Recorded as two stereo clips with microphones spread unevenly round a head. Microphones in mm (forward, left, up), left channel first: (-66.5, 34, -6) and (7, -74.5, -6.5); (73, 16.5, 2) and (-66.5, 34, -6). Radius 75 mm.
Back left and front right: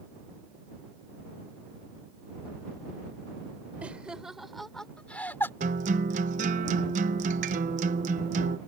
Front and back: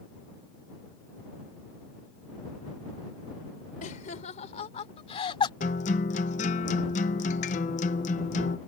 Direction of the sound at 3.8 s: 25° left.